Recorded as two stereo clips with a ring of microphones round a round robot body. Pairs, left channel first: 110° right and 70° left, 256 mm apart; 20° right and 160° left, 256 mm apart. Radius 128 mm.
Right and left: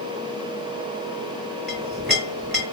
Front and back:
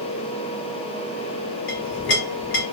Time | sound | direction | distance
1.7 | a clink | 25° right | 3 m